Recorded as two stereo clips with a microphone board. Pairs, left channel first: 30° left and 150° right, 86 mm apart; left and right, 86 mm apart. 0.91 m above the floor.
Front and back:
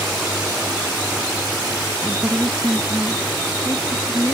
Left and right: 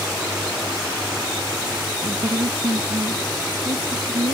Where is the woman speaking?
75° right; by 4.3 s 80° right.